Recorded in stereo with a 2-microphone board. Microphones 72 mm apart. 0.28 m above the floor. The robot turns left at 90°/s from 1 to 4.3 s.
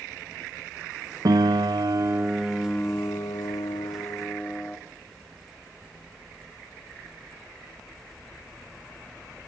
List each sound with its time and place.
1.2 s a piano: 65° right, 0.8 m; by 4.8 s 20° left, 0.8 m